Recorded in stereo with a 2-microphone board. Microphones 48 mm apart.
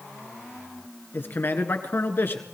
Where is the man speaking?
50° left (ahead or behind), 1.6 m.